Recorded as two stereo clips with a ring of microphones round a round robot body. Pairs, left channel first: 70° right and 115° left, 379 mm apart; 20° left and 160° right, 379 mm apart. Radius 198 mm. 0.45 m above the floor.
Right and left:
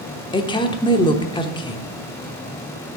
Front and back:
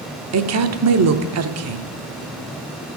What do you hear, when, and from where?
0.3 s a woman speaking: 140° right, 0.9 m